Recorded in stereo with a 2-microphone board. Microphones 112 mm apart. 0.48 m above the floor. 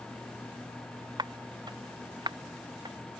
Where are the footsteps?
40° right (ahead or behind); by 3.0 s 45° right (ahead or behind).